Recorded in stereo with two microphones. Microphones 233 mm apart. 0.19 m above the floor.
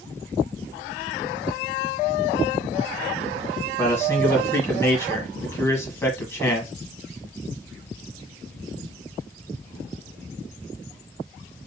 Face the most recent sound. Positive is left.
turn(degrees=10)  # may be behind; listen again after turning